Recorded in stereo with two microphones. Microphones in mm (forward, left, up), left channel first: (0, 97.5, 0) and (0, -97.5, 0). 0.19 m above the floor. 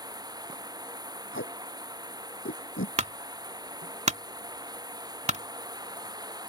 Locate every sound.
0.0 s running water: 20° right (ahead or behind)
1.3 s tape being pulled: 75° left (ahead or behind)
3.0 s a clunk: 35° right (ahead or behind)